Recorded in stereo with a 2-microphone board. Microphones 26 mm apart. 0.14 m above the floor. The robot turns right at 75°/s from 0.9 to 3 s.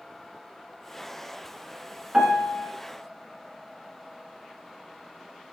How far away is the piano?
About 1.2 m.